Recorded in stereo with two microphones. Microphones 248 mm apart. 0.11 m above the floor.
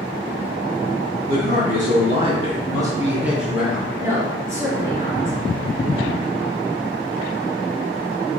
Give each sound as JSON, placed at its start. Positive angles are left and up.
{"t": 1.3, "sound": "a man speaking", "side_deg": -35, "distance_m": 1.5}
{"t": 4.0, "sound": "a woman speaking", "side_deg": -10, "distance_m": 1.8}